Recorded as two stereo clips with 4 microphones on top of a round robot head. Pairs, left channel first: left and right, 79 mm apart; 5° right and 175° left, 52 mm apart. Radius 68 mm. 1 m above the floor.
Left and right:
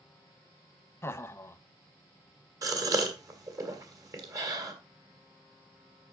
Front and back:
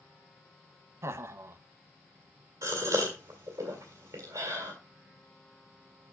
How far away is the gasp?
About 2 m.